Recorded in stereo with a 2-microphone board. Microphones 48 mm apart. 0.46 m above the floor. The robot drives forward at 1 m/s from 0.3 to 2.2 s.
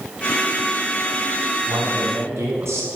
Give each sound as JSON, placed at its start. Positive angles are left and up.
{"t": 1.7, "sound": "a man speaking", "side_deg": -70, "distance_m": 5.0}